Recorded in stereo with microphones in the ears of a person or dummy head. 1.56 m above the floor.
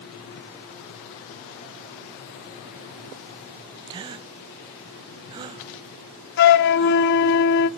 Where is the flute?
55° left (ahead or behind), 0.9 m.